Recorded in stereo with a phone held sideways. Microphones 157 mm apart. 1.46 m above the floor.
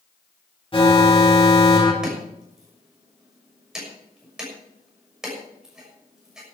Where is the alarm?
35° left (ahead or behind), 2.5 m.